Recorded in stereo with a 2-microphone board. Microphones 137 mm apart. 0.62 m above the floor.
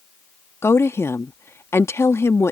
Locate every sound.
0.6 s a woman speaking: 20° left (ahead or behind)